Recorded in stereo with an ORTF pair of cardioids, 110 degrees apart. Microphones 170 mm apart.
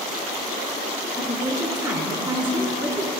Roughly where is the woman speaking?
Ahead.